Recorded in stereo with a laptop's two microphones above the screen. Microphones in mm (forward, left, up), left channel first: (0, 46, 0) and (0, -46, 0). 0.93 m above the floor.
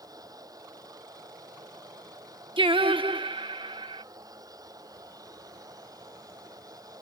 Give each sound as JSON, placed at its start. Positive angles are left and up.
{"t": 0.0, "sound": "a machine running", "side_deg": -45}
{"t": 2.6, "sound": "singing", "side_deg": -70}